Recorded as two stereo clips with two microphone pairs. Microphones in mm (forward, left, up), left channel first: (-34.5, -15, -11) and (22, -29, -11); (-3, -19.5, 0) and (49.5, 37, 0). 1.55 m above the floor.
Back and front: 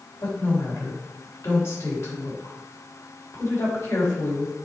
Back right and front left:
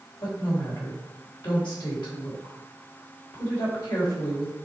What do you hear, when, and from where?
0.2 s a woman speaking: 150° right, 3.5 m